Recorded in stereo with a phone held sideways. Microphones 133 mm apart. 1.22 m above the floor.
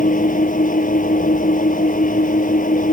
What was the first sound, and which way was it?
An engine running, 90° left.